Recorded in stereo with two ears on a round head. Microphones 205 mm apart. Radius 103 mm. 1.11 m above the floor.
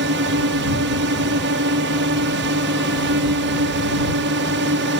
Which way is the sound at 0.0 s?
50° right (ahead or behind).